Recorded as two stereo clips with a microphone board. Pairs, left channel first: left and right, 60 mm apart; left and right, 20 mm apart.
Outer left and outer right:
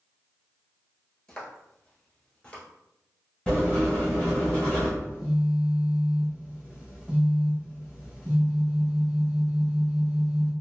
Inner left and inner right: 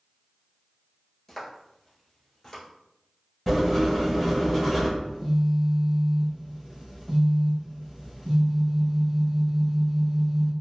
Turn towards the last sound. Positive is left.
turn(degrees=-20)  # may be behind; listen again after turning